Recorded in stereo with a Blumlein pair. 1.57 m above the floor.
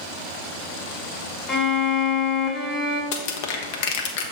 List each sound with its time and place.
1.5 s a violin: 10° left, 1.1 m
3.1 s crushing: 50° left, 0.9 m